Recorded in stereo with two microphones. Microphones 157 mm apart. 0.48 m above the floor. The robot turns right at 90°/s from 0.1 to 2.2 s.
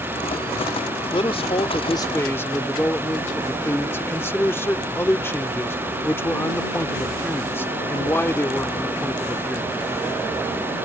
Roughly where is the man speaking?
Ahead left.